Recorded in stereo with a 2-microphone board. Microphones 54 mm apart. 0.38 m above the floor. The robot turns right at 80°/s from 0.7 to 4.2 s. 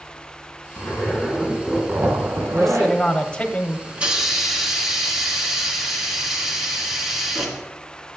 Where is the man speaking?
Centre (ahead or behind), 0.9 m; by 3.8 s 25° left (ahead or behind), 0.9 m.